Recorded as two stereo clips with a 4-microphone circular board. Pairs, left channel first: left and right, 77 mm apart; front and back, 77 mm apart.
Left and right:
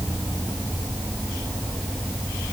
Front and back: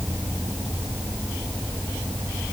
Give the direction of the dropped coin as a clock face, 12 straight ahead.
No dropped coin in this recording.